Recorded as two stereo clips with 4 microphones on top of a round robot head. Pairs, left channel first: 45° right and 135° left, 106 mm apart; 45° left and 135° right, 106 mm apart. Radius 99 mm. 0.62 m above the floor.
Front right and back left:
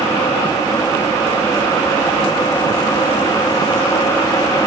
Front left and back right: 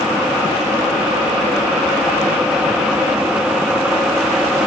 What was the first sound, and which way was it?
Only background noise.